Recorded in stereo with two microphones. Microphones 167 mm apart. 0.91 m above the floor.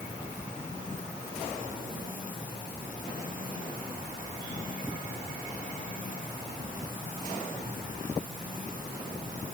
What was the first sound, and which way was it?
Only background noise.